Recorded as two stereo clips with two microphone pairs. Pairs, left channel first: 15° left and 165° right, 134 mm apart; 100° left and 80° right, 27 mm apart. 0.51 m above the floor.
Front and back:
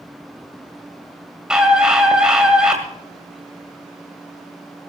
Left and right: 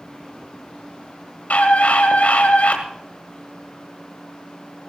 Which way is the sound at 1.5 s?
115° left.